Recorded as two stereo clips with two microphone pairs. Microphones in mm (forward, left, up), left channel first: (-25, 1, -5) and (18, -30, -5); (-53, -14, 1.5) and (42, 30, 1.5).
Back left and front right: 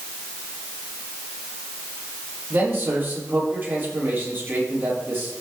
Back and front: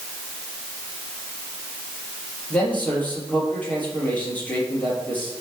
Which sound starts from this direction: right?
A man speaking, at 2.5 s.